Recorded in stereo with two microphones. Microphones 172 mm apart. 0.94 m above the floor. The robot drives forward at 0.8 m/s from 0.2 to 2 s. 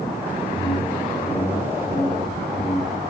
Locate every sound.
0.5 s a whoosh: 60° left (ahead or behind), 7.5 m; by 3.0 s 65° left (ahead or behind), 7 m